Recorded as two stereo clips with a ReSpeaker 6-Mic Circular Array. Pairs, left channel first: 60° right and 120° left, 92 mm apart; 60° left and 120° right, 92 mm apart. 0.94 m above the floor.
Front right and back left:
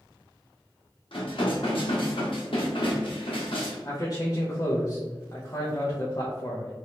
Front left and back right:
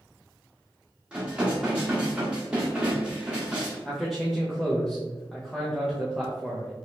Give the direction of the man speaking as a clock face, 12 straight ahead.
1 o'clock.